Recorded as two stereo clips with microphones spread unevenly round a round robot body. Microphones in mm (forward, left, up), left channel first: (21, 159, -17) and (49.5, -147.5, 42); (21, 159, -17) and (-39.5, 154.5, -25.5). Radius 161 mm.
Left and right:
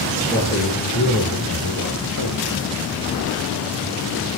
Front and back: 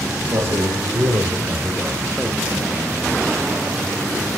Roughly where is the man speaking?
Behind.